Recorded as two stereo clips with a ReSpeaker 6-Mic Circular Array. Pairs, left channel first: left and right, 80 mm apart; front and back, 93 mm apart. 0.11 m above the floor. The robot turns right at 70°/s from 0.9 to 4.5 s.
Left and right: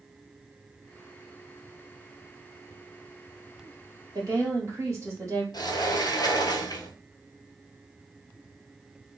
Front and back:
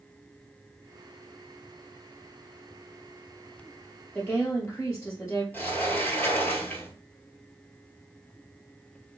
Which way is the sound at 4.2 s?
70° right.